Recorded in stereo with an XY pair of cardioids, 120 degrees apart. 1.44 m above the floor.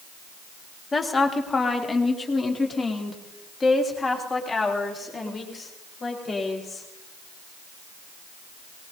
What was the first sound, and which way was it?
A woman speaking, 25° left.